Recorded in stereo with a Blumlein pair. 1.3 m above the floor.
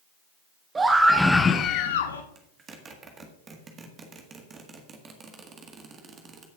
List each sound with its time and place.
0.8 s a scream: 15° right, 1.4 m; by 2.2 s 75° left, 0.9 m
2.4 s a zipper: 20° right, 1.7 m